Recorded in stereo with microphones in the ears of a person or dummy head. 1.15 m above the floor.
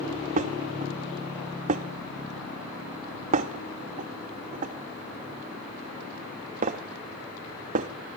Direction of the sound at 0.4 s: 40° right (ahead or behind).